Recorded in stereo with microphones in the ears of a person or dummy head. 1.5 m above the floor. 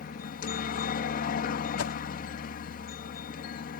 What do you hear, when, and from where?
0.0 s a helicopter: 45° left (ahead or behind)
1.8 s a whoosh: 85° left